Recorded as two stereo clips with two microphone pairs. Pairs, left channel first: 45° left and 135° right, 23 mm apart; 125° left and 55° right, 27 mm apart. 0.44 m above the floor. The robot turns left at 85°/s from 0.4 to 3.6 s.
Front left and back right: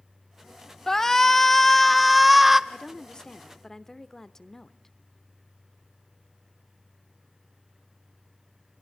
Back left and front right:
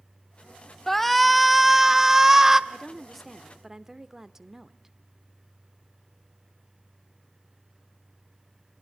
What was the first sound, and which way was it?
A shout, 65° left.